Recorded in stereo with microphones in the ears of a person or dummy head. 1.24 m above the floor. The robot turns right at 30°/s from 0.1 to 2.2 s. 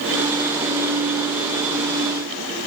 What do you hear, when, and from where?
Only background noise.